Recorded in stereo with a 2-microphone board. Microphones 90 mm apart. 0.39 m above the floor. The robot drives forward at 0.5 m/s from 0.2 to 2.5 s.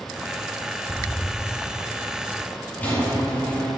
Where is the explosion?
Centre (ahead or behind), 0.5 m.